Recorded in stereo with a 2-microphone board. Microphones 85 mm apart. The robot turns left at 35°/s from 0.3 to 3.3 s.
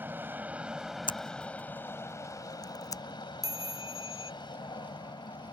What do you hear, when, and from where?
0.0 s an aircraft: 155° right; by 5.5 s 100° left
1.1 s scissors: 75° left (ahead or behind); by 3.0 s 40° left (ahead or behind)
3.4 s a chime: 45° right (ahead or behind)